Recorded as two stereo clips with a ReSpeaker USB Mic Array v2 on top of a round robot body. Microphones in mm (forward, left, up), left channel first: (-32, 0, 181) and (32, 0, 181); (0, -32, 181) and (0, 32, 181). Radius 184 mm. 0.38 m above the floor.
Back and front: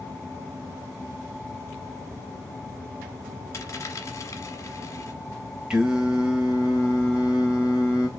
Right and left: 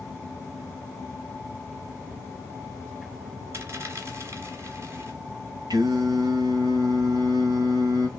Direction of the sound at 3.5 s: 140° left.